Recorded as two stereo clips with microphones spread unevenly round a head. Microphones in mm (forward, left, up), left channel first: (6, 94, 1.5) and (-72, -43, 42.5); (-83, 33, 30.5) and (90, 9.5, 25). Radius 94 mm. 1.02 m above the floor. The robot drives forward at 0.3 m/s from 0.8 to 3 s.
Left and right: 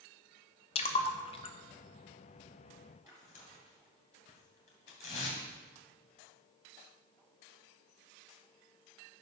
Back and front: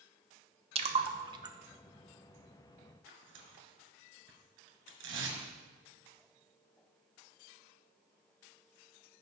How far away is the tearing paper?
About 2.5 m.